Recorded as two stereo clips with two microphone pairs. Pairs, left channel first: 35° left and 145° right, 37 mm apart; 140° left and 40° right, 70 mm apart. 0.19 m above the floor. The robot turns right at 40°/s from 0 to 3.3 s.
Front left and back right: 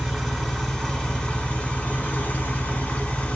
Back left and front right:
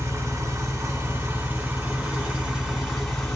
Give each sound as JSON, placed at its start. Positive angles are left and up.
{"t": 0.0, "sound": "an engine running", "azimuth_deg": -65, "distance_m": 1.5}